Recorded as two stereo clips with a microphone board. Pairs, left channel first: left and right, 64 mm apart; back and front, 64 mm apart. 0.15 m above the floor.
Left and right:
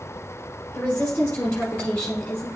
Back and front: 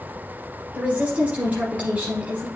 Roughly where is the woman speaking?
Ahead left.